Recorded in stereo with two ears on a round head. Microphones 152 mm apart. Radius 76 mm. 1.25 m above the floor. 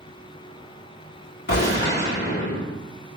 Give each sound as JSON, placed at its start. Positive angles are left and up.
{"t": 1.5, "sound": "a gunshot", "side_deg": 70, "distance_m": 2.5}